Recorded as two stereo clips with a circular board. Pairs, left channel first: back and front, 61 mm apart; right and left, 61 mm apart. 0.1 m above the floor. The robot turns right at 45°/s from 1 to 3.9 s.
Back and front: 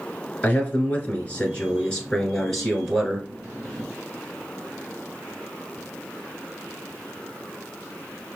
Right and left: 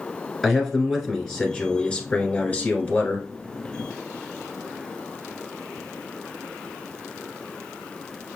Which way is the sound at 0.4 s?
170° right.